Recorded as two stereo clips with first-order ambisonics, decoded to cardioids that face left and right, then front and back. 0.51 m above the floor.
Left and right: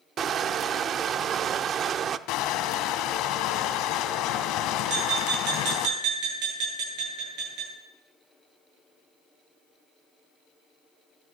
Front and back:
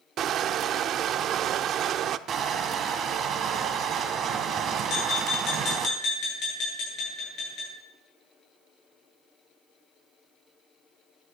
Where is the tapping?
55° right, 8.5 m.